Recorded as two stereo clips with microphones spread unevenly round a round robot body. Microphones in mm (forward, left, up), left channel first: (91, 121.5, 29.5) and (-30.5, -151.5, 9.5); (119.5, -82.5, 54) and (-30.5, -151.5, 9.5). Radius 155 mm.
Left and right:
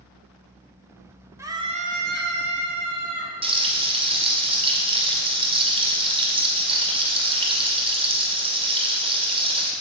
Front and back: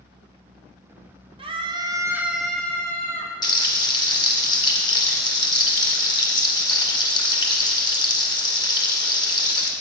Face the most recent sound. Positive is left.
turn(degrees=-40)